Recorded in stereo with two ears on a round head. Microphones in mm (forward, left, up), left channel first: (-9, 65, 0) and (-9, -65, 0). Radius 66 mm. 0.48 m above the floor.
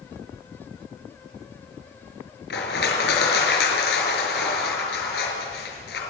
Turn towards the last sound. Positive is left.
turn(degrees=75)  # may be behind; listen again after turning